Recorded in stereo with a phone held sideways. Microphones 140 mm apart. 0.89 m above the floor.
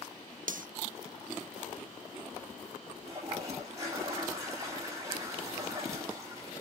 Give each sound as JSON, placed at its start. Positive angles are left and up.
{"t": 0.5, "sound": "cutlery clinking", "side_deg": -65, "distance_m": 0.5}
{"t": 3.0, "sound": "a toilet flushing", "side_deg": -20, "distance_m": 5.5}